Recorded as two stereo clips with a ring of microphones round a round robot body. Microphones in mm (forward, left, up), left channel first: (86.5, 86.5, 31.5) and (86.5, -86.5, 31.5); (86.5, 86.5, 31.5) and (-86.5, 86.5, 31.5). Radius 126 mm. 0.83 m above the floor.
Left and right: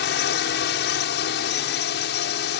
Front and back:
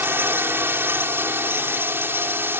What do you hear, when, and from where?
0.0 s a drone: 105° left